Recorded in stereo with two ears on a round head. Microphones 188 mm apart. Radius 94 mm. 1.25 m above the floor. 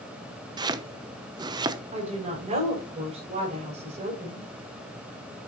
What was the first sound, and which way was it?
Chopping, 20° right (ahead or behind).